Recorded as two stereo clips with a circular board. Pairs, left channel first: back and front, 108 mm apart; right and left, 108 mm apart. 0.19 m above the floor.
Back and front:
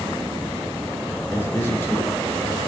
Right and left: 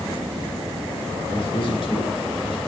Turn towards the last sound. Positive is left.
turn(degrees=-115)